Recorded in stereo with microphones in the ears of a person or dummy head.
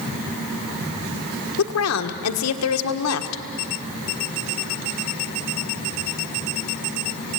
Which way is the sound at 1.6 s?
85° left.